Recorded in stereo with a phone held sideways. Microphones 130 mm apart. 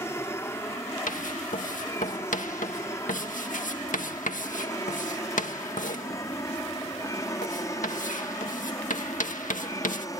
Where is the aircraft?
20° left (ahead or behind); by 10.2 s 25° left (ahead or behind).